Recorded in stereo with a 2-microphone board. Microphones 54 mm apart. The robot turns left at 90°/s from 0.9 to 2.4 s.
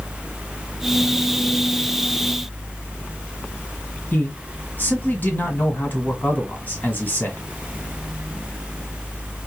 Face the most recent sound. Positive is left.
turn(degrees=35)  # may be behind; listen again after turning